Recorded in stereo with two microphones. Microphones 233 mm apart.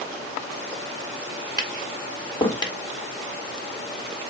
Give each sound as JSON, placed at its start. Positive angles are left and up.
{"t": 1.6, "sound": "tapping", "side_deg": 20, "distance_m": 1.0}